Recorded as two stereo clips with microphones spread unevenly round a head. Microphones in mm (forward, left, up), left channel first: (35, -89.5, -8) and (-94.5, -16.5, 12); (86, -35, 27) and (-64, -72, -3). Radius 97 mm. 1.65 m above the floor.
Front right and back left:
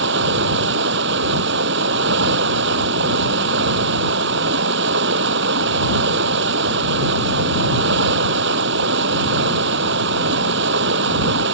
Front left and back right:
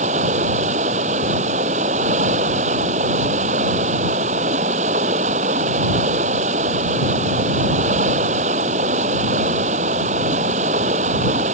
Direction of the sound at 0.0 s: 135° left.